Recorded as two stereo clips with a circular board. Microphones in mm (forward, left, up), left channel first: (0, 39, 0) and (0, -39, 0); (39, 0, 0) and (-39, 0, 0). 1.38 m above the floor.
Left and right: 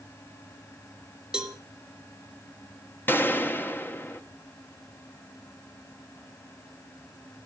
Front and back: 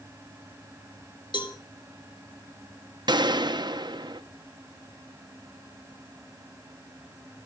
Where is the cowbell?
10° right, 1.5 m.